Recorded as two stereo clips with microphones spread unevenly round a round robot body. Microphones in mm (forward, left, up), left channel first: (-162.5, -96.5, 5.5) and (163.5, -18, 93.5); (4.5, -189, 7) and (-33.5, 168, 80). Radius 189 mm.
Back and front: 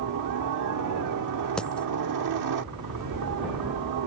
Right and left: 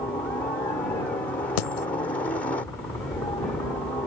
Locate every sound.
0.0 s a helicopter: 10° right
1.6 s a dropped coin: 80° right